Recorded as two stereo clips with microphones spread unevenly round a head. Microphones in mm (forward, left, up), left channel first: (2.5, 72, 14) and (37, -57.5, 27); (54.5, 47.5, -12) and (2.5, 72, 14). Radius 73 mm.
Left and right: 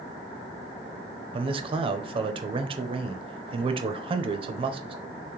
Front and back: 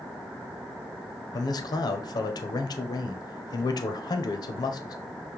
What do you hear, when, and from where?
1.3 s a man speaking: 20° right, 0.6 m